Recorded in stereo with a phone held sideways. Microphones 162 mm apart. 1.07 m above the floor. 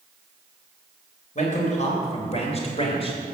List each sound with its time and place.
1.4 s a man speaking: 50° left (ahead or behind), 4 m; by 3.2 s 40° left (ahead or behind), 3.5 m